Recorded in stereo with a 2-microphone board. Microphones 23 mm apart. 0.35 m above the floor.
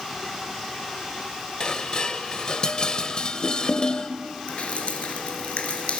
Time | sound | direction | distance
1.6 | dishes clattering | 40° left (ahead or behind) | 1.0 m
4.5 | dripping | 65° left (ahead or behind) | 2.5 m